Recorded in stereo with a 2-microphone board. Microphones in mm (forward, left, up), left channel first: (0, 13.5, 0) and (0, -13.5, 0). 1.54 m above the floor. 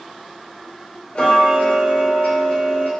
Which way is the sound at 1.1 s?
40° left (ahead or behind).